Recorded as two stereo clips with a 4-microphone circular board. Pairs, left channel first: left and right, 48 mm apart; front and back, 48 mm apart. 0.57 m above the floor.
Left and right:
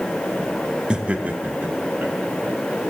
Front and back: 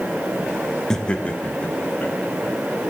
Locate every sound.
0.9 s laughter: 60° right, 0.8 m; by 2.9 s 45° right, 3 m